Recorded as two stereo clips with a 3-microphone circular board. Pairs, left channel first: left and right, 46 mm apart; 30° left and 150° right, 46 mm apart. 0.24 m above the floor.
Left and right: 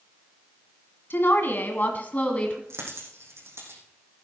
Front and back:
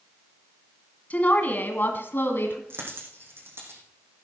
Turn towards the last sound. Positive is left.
turn(degrees=-115)